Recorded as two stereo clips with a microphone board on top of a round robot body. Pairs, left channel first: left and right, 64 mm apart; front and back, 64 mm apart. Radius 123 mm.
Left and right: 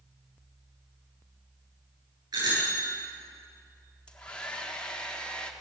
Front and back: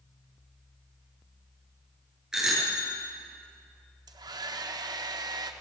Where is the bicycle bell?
100° right, 9.5 m.